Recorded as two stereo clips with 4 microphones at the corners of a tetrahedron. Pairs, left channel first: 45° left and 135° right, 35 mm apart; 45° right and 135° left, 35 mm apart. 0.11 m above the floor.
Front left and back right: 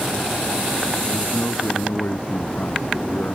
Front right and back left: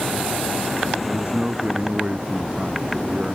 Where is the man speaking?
75° left.